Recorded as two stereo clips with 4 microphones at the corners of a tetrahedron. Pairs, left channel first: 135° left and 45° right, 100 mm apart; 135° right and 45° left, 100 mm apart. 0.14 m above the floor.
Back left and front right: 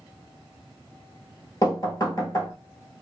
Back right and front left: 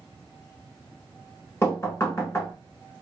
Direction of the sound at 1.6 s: 170° left.